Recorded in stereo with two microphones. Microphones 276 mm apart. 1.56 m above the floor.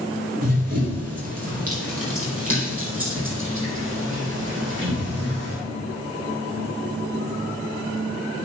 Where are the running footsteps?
60° right (ahead or behind), 3 m; by 5.6 s 40° right (ahead or behind), 5 m.